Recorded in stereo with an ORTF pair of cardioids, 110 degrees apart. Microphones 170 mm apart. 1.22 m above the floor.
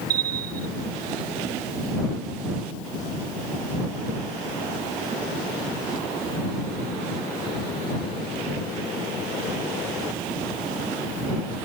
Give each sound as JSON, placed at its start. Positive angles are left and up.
{"t": 0.1, "sound": "a bell", "azimuth_deg": -60}